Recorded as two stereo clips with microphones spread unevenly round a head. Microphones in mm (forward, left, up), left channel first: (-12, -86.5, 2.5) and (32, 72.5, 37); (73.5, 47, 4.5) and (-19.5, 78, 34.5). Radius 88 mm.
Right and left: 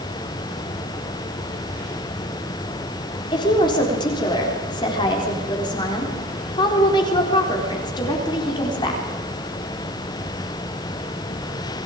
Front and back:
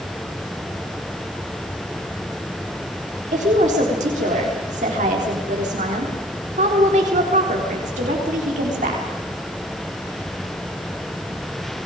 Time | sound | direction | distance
3.3 | a woman speaking | 170° right | 4 m